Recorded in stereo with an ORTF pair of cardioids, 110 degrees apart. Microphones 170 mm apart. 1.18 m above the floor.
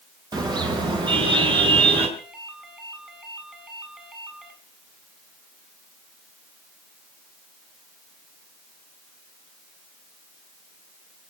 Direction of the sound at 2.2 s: 5° right.